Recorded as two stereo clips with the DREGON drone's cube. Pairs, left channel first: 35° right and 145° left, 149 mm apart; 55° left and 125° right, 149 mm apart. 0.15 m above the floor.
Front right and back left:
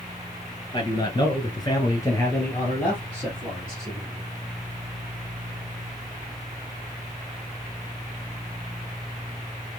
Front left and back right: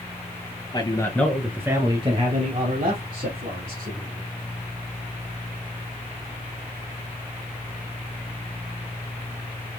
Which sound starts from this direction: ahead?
A man speaking, at 0.7 s.